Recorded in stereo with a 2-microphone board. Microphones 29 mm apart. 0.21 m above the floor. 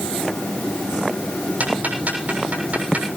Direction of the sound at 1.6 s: 55° right (ahead or behind).